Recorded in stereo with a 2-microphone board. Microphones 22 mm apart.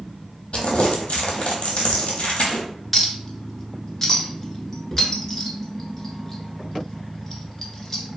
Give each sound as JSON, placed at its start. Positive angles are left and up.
{"t": 0.5, "sound": "crumpling", "side_deg": 65, "distance_m": 0.8}
{"t": 2.9, "sound": "a clink", "side_deg": 15, "distance_m": 0.6}